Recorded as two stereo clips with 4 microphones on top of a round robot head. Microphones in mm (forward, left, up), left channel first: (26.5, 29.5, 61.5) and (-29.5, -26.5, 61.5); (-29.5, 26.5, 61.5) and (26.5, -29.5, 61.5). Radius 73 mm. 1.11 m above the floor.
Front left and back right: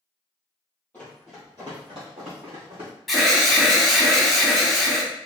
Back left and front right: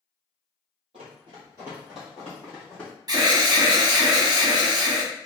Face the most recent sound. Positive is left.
turn(degrees=-45)